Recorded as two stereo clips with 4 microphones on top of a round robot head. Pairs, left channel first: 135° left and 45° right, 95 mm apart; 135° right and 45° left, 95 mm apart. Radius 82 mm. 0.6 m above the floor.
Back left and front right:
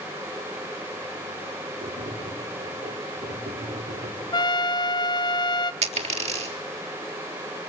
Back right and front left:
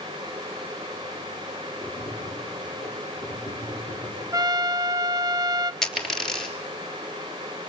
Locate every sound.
1.8 s tapping: 45° right, 7 m
4.3 s a trumpet: 95° left, 0.9 m
5.8 s a dropped coin: 50° right, 3.5 m